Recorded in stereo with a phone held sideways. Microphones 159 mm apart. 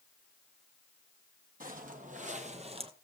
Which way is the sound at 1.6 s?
60° right (ahead or behind).